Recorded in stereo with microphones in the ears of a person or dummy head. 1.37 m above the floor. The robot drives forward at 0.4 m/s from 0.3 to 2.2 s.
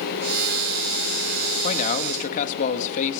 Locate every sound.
1.6 s a man speaking: 40° left (ahead or behind), 2 m; by 3.2 s 45° left (ahead or behind), 2.0 m